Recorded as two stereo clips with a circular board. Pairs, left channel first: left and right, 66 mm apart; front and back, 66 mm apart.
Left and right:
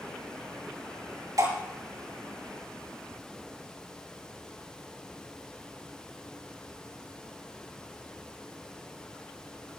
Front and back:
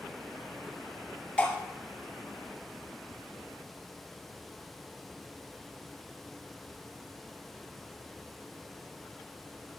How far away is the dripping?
About 6 m.